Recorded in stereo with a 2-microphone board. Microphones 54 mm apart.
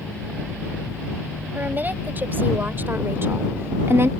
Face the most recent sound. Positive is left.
turn(degrees=-50)  # may be behind; listen again after turning